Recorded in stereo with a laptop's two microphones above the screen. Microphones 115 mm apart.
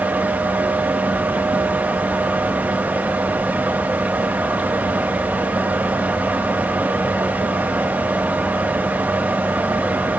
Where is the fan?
15° right (ahead or behind), 1.2 m.